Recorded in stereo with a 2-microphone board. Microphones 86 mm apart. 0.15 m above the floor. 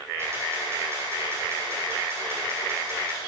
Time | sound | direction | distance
0.2 | a camera shutter | 30° right (ahead or behind) | 4.5 m